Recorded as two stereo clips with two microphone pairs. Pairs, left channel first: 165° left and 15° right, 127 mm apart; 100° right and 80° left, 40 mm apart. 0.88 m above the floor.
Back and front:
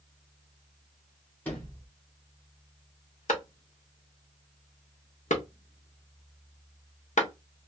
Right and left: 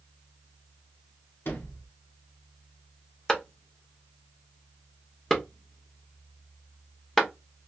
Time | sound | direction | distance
1.4 | a sliding door | 115° right | 1.1 m
3.3 | a clap | straight behind | 0.9 m